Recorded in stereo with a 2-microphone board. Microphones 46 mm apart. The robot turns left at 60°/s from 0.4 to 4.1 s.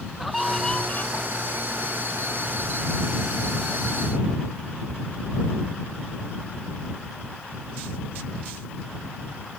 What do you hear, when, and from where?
0.2 s a scream: straight behind; by 1.2 s 130° left